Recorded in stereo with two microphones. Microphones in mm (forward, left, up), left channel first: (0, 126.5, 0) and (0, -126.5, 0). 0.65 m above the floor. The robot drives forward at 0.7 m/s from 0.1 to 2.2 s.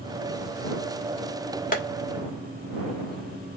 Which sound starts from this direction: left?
Tapping, at 1.7 s.